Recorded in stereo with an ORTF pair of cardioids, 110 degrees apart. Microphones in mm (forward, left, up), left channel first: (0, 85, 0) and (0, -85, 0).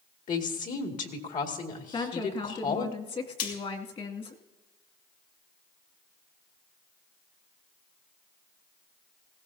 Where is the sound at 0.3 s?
50° left, 2 m.